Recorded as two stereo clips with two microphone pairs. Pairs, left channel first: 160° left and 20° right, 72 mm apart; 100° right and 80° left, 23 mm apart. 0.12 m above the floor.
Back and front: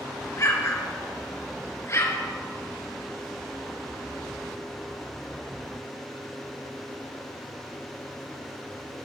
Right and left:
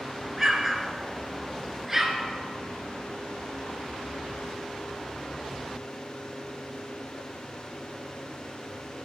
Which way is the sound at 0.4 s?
150° left.